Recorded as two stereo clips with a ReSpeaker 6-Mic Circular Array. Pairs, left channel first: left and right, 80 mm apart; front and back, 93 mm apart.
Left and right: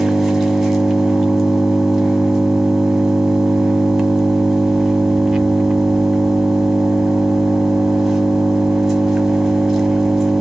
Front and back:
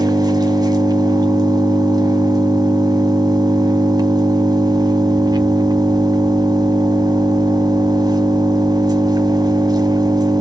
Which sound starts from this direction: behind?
An engine running, at 0.0 s.